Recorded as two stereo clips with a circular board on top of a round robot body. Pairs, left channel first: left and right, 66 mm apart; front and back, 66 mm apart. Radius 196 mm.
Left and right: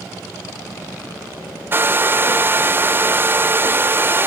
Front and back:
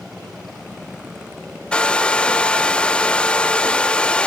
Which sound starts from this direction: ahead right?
A hair dryer, at 1.7 s.